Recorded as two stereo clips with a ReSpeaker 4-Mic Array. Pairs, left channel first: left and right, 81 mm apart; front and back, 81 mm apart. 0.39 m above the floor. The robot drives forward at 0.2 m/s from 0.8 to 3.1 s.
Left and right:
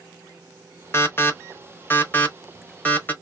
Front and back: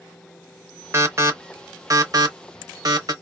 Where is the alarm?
135° left, 0.7 m; by 3.1 s 155° left, 1.0 m.